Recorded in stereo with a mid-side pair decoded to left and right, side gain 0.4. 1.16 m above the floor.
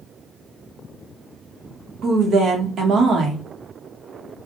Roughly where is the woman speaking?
Ahead right.